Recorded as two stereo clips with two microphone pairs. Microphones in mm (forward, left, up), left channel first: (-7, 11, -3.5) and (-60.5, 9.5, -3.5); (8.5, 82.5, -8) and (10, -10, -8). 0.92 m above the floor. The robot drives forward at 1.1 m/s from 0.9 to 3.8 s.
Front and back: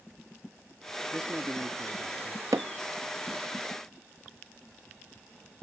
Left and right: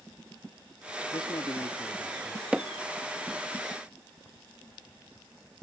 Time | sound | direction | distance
1.1 | a man speaking | 120° left | ?
2.5 | hammering | 170° right | ?